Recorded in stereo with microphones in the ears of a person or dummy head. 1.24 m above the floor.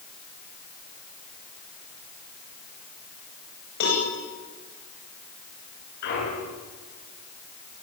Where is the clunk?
55° left (ahead or behind), 8.5 m.